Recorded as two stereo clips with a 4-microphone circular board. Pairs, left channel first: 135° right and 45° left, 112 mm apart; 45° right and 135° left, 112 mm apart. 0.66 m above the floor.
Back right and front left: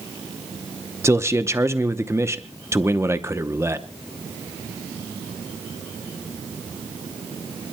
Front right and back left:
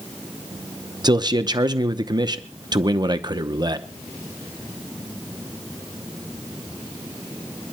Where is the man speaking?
100° left, 0.8 m.